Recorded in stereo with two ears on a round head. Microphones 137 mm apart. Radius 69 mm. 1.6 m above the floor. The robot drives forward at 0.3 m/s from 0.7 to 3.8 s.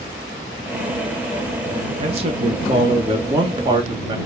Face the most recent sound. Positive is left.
turn(degrees=-30)  # may be behind; listen again after turning